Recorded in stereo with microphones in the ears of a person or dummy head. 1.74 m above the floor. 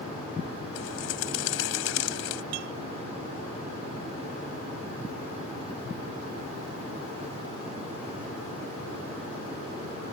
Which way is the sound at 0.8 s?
75° left (ahead or behind).